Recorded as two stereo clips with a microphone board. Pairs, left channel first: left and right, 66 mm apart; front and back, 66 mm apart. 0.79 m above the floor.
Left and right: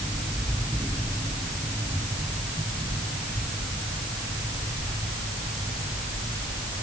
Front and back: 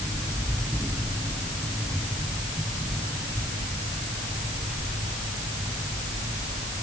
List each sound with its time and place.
Only background noise.